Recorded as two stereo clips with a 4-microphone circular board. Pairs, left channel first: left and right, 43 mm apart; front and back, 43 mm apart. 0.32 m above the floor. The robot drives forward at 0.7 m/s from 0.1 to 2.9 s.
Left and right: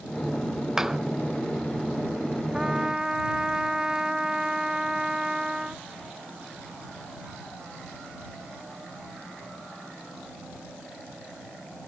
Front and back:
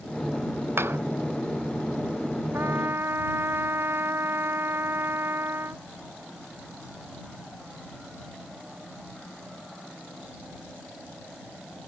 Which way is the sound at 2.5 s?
160° right.